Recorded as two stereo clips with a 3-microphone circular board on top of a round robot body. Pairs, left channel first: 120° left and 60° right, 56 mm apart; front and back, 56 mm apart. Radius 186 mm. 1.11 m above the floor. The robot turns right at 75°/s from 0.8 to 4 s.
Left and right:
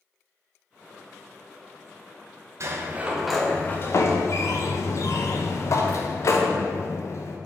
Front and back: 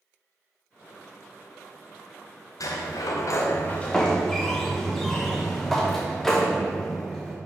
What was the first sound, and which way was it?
A sliding door, 20° right.